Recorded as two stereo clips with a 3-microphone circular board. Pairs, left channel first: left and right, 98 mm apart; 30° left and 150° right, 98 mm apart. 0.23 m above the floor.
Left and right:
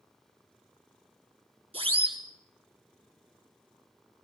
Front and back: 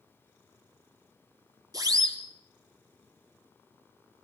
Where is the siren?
100° right, 4 m.